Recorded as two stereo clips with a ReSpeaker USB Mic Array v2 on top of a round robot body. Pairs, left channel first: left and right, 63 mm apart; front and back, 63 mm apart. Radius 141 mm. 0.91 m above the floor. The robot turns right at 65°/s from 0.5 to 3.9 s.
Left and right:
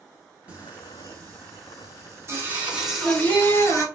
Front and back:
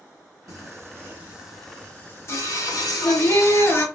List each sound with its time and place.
0.5 s singing: 155° right, 2 m; by 3.9 s 60° left, 2 m